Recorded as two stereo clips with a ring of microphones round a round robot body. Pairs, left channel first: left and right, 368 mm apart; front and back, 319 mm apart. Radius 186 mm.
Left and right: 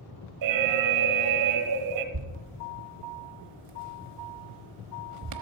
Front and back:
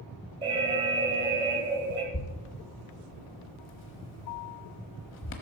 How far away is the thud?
About 1.0 m.